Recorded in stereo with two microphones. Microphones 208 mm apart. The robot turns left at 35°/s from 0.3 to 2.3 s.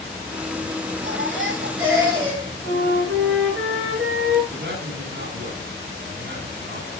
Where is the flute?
75° right (ahead or behind), 7.5 m.